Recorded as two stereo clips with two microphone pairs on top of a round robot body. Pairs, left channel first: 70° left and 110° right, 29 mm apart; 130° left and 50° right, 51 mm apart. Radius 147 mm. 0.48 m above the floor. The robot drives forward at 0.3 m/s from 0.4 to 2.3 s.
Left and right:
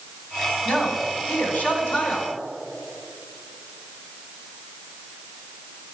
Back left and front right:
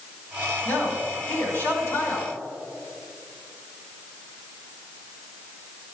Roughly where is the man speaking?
Left.